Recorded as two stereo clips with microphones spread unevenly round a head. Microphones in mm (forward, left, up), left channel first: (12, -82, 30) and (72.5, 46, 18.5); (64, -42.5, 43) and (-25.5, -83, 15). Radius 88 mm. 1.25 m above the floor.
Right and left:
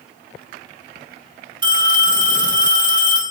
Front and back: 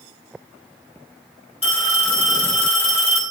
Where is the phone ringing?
10° left, 5.5 m.